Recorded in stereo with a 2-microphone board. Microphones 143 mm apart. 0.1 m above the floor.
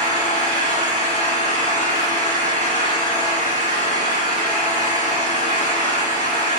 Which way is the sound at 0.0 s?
65° right (ahead or behind).